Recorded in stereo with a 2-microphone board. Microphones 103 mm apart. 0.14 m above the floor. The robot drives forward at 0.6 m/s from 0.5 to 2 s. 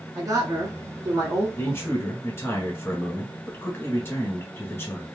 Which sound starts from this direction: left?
A man speaking, at 1.6 s.